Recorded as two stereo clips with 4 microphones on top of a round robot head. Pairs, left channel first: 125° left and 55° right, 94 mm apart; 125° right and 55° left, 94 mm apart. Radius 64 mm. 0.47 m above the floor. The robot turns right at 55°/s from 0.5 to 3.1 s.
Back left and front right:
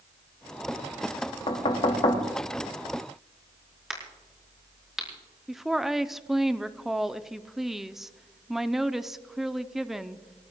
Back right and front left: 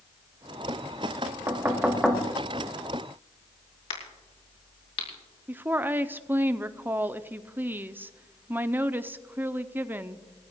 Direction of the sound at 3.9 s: 140° right.